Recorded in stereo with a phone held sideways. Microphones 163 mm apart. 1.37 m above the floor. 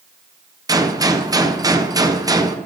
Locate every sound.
0.7 s a gunshot: 25° right (ahead or behind), 0.5 m